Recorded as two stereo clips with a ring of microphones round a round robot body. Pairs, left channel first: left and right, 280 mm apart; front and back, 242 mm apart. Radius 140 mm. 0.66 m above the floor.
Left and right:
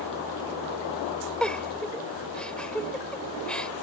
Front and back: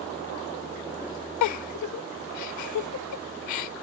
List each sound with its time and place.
1.4 s a giggle: 5° left